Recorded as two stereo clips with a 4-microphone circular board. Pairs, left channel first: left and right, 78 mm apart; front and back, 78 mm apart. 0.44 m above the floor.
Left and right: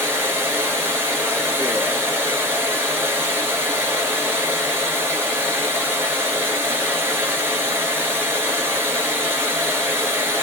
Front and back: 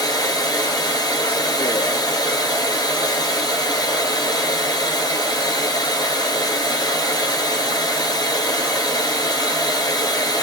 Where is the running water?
30° right, 1.1 m.